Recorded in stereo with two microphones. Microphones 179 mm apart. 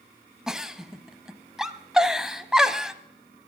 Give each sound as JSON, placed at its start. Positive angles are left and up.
{"t": 0.5, "sound": "a giggle", "side_deg": -5, "distance_m": 0.6}